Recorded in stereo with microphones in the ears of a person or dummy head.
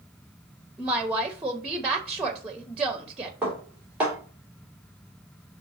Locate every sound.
0.8 s a woman speaking: 10° right (ahead or behind), 0.8 m
3.4 s dishes clattering: 10° right (ahead or behind), 3 m